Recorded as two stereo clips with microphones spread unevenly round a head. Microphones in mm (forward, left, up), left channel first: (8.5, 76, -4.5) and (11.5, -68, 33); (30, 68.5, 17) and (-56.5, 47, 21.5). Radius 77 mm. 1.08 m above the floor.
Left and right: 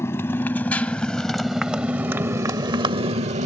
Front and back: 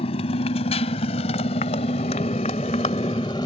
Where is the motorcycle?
15° left; by 3.5 s 50° right.